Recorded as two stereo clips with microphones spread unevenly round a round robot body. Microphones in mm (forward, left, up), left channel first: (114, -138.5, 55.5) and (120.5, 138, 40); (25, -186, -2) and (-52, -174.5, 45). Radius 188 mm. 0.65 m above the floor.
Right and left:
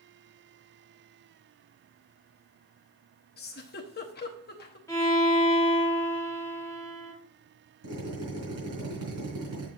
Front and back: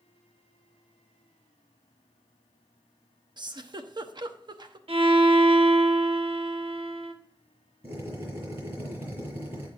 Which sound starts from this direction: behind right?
A giggle, at 3.4 s.